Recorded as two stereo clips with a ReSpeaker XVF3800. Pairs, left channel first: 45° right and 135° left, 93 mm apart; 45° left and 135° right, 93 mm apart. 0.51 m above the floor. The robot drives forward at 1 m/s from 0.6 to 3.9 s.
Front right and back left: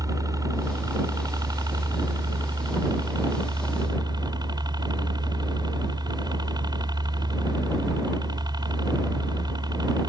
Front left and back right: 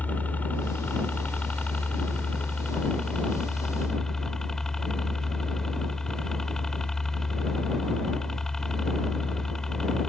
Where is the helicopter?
110° left; by 10.1 s 130° left.